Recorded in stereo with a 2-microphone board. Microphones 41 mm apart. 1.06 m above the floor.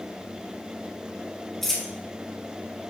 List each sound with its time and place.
1.6 s a dropped coin: 10° left (ahead or behind), 2.5 m